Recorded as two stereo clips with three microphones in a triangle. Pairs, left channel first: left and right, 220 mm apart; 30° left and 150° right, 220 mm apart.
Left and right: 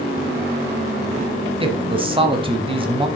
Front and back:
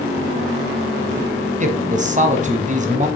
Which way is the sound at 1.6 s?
135° right.